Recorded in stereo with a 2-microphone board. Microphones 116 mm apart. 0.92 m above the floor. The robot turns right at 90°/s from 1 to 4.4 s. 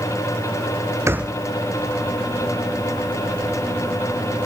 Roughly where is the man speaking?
I don't hear a man speaking.